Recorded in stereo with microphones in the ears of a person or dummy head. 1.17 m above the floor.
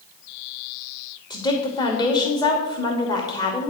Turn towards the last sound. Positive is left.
turn(degrees=15)  # may be behind; listen again after turning